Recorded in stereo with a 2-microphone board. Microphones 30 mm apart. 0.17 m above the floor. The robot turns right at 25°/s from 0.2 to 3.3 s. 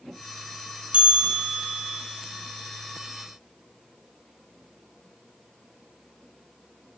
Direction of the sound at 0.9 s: 45° right (ahead or behind).